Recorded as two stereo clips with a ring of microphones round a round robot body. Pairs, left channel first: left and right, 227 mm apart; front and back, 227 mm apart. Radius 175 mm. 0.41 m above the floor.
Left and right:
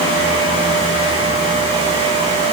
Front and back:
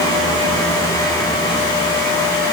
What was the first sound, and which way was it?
Only background noise.